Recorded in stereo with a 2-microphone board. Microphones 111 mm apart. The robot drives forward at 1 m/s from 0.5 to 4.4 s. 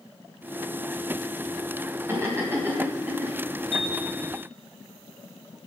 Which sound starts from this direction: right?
Laughter, at 2.1 s.